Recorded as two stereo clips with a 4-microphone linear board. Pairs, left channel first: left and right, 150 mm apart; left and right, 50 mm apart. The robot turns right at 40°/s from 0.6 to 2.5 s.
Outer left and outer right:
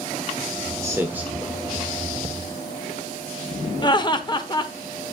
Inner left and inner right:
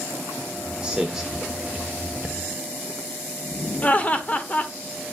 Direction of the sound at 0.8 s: 20° right (ahead or behind).